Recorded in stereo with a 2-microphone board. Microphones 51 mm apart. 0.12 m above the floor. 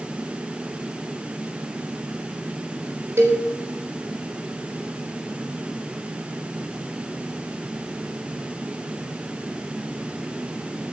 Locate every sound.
3.2 s a cowbell: 60° right (ahead or behind), 5.5 m